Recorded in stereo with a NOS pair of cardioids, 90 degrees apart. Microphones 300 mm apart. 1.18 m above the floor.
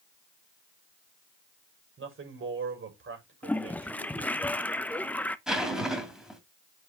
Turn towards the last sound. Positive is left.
turn(degrees=0)